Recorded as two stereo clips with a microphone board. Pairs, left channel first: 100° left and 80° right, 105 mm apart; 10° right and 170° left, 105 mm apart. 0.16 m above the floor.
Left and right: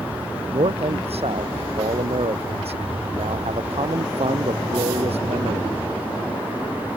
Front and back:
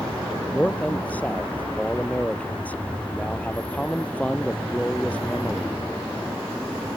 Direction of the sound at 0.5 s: 85° right.